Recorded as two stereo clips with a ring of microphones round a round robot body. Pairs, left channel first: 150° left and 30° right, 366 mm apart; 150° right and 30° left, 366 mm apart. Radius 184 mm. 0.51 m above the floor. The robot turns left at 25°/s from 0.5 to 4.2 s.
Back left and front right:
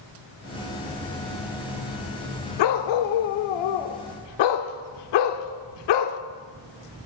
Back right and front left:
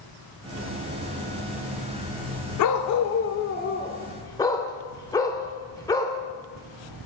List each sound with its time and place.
2.6 s a dog barking: 170° left, 0.6 m; by 6.2 s 130° left, 0.6 m